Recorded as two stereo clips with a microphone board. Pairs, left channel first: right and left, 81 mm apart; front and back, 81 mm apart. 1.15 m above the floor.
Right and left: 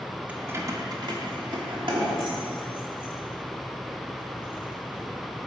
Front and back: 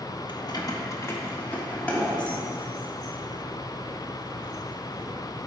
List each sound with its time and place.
0.3 s keys jangling: 20° left, 0.7 m; by 5.0 s 90° left, 3.5 m